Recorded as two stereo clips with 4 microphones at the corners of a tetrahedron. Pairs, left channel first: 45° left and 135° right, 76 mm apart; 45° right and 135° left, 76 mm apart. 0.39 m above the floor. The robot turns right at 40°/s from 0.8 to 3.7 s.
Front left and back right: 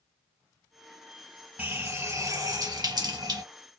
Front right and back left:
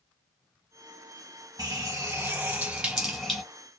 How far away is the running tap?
About 1.5 m.